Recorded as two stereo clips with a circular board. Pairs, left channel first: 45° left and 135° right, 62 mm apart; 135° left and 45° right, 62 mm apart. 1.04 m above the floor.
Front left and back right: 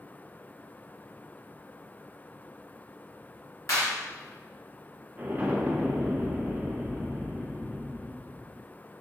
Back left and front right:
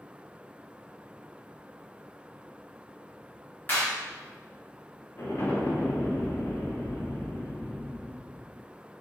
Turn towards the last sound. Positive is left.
turn(degrees=165)